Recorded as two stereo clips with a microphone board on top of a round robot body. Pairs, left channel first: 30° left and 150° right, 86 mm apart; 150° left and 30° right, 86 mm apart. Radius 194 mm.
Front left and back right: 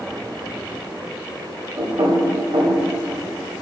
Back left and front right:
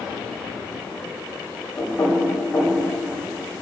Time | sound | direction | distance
1.8 | knocking | 145° right | 3 m